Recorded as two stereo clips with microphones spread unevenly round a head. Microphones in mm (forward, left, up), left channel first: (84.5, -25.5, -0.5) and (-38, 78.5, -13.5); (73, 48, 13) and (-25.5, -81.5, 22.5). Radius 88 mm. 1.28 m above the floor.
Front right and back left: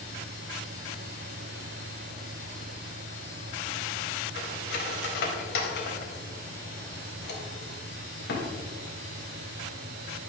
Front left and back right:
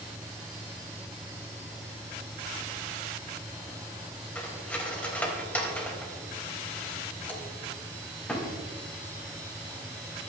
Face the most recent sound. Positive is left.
turn(degrees=-30)